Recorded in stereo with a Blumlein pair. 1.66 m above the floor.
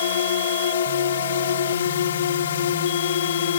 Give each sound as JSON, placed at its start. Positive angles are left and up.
{"t": 0.0, "sound": "a drone", "azimuth_deg": 60}